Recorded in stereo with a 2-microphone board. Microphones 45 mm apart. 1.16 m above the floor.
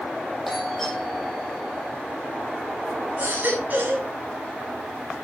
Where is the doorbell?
Centre (ahead or behind), 8.5 m.